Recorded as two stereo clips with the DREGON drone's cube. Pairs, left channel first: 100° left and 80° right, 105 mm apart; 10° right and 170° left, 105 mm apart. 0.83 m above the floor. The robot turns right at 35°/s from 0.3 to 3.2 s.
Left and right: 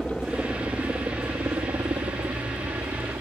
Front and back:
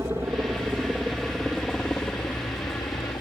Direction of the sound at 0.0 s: 160° right.